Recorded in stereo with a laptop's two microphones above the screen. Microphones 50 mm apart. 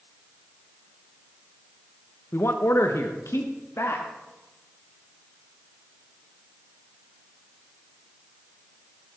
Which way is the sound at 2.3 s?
55° left (ahead or behind).